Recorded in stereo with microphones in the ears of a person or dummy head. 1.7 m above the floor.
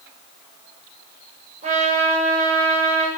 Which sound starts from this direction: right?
A trumpet, at 1.6 s.